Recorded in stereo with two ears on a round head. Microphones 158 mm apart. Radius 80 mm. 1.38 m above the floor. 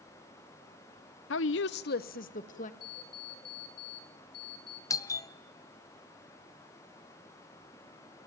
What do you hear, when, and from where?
1.3 s a woman speaking: 75° left (ahead or behind), 0.6 m; by 2.7 s 45° left (ahead or behind), 1.9 m
2.8 s an alarm clock: 55° left (ahead or behind), 2 m
4.9 s a doorbell: 20° left (ahead or behind), 0.7 m